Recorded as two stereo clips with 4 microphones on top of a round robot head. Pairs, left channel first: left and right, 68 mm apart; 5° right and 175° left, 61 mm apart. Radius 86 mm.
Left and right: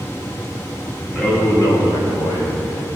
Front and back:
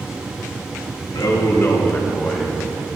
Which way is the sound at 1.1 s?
15° left.